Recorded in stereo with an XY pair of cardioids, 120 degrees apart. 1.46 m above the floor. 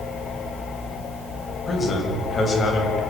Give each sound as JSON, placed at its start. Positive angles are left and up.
{"t": 1.7, "sound": "a man speaking", "azimuth_deg": 25, "distance_m": 7.0}